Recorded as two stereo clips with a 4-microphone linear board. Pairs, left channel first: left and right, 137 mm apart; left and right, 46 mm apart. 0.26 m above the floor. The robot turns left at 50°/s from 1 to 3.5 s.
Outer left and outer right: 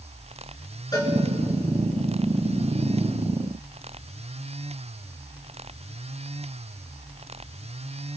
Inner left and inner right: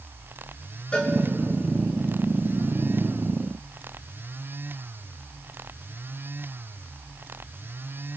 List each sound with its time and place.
0.9 s a cowbell: 30° left (ahead or behind), 3 m; by 1.1 s 35° left (ahead or behind), 3 m